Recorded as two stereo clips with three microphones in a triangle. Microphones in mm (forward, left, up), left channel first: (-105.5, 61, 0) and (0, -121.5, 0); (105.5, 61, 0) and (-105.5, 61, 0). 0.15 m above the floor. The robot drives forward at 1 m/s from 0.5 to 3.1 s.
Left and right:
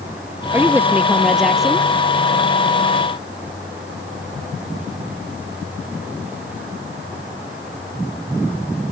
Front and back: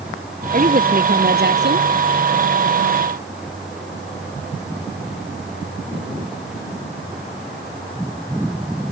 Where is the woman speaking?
135° right; by 1.9 s 150° right.